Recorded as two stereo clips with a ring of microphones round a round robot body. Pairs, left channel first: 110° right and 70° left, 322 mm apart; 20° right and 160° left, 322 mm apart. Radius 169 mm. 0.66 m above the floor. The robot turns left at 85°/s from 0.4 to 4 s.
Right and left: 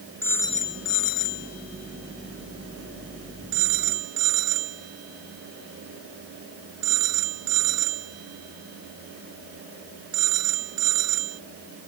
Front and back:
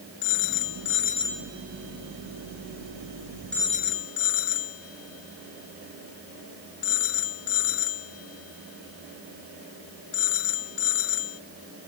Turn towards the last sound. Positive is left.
turn(degrees=25)